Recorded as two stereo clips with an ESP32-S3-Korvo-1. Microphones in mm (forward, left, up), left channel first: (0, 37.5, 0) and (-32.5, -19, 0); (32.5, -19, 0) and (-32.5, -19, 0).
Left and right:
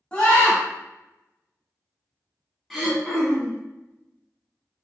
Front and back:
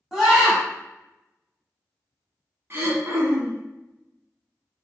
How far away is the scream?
About 1.1 m.